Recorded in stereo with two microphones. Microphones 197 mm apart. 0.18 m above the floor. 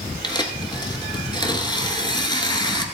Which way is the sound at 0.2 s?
20° left (ahead or behind).